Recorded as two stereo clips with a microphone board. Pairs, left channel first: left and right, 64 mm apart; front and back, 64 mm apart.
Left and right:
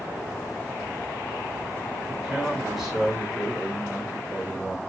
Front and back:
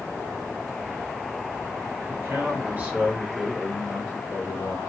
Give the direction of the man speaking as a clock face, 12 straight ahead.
6 o'clock.